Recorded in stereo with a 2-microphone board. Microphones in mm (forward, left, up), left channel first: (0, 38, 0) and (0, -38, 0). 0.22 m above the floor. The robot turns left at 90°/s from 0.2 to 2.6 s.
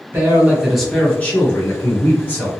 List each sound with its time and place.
0.1 s a man speaking: 125° right, 1.2 m; by 2.5 s 25° left, 1.2 m